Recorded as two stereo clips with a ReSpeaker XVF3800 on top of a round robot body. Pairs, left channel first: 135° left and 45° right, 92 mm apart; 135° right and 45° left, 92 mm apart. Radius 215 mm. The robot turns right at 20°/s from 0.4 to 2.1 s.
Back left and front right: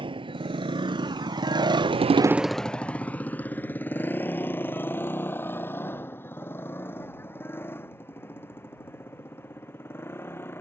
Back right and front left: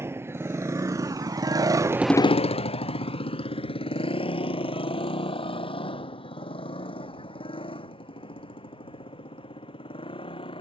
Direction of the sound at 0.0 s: 20° right.